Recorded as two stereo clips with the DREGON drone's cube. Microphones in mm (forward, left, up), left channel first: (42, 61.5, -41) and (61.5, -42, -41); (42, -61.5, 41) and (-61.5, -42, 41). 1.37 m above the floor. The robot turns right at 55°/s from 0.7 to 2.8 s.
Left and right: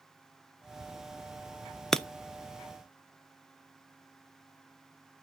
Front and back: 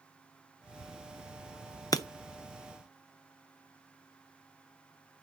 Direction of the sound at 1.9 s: 15° left.